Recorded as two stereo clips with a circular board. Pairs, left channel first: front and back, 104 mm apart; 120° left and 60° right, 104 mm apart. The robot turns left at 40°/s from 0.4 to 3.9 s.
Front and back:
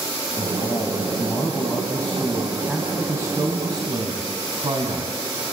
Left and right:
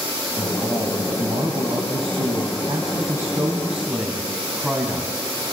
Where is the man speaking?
5° right, 3 m; by 5.2 s 145° right, 3 m.